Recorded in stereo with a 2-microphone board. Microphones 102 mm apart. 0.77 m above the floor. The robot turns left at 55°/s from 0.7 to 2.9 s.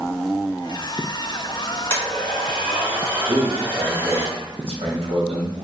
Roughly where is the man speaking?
Right.